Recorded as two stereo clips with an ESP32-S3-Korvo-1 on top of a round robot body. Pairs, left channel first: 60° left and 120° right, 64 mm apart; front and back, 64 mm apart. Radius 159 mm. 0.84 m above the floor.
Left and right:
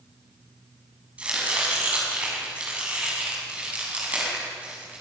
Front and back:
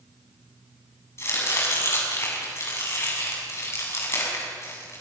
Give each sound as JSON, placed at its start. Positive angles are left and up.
{"t": 1.2, "sound": "chopping", "azimuth_deg": -45, "distance_m": 8.0}